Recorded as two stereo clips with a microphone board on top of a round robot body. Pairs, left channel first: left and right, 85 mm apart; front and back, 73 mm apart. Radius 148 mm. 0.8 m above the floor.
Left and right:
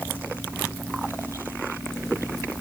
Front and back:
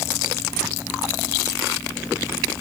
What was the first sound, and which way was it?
Only background noise.